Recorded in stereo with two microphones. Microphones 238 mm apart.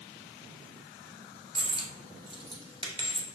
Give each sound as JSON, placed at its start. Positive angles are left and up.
{"t": 1.6, "sound": "a dropped coin", "side_deg": -20, "distance_m": 0.8}